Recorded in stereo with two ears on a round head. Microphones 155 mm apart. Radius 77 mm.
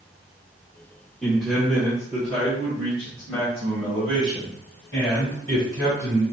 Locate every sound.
1.2 s a man speaking: centre (ahead or behind), 1.1 m